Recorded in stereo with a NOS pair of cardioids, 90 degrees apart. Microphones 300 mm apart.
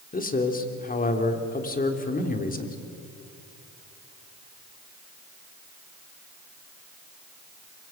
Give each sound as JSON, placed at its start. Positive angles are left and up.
{"t": 0.1, "sound": "a man speaking", "azimuth_deg": 30, "distance_m": 3.5}